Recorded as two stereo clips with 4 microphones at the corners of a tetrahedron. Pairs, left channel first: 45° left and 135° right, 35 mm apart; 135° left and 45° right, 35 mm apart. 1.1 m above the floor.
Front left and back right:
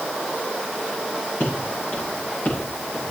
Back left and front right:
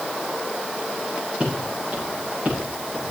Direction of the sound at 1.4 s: 10° left.